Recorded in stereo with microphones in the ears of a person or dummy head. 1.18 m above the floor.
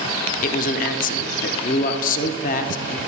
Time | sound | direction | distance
0.4 | a man speaking | 40° left (ahead or behind) | 0.5 m